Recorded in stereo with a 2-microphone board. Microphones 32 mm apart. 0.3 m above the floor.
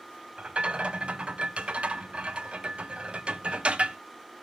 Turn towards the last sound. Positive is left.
turn(degrees=-35)  # may be behind; listen again after turning